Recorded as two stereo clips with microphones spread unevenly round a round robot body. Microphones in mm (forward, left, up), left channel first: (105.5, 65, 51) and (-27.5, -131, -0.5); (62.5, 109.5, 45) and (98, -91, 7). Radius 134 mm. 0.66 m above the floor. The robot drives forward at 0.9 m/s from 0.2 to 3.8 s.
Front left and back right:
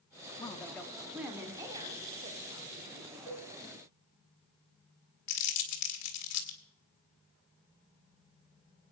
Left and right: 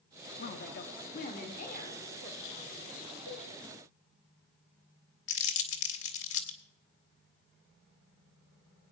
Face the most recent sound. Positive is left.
turn(degrees=85)